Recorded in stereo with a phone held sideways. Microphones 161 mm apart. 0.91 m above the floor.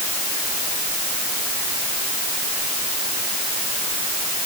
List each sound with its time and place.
Only background noise.